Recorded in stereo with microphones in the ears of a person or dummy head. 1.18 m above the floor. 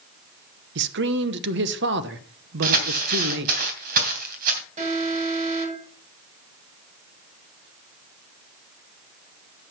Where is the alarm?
40° right (ahead or behind), 7 m.